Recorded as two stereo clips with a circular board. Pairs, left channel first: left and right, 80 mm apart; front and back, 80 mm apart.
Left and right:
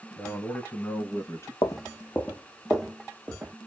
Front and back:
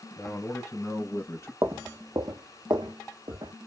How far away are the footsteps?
About 0.9 m.